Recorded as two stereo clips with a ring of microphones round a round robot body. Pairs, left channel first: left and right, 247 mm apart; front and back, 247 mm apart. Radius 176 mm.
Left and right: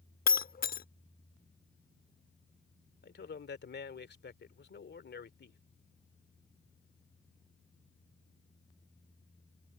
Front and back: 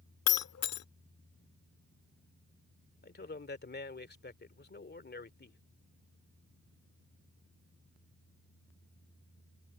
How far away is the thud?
I don't hear a thud.